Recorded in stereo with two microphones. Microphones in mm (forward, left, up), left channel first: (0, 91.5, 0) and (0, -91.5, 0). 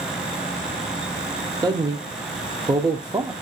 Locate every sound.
1.6 s a man speaking: 25° right (ahead or behind), 0.7 m